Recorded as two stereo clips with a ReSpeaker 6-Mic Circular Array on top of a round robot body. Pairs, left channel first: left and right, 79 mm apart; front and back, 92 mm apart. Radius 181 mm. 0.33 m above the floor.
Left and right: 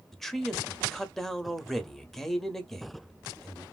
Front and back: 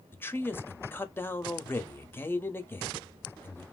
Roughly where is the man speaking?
Ahead.